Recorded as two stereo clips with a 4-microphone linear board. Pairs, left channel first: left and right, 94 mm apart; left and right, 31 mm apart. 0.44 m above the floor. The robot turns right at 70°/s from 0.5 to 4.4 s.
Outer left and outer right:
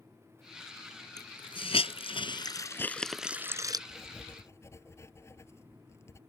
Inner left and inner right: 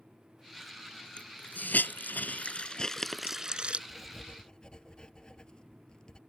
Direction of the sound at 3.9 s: 5° right.